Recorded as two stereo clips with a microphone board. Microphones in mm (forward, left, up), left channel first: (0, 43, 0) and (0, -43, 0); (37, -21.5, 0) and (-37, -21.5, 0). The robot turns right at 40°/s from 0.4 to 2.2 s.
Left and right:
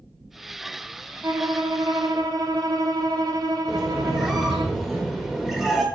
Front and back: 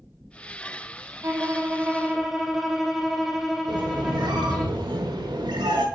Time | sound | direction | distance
1.2 | a violin | 135° right | 0.8 m
3.7 | a squeak | 175° right | 1.1 m